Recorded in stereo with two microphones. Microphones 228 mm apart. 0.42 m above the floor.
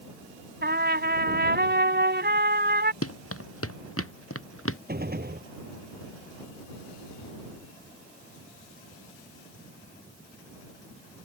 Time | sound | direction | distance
0.6 | a trumpet | 45° right (ahead or behind) | ?
3.0 | running footsteps | 85° left | ?
4.9 | a gunshot | 45° right (ahead or behind) | ?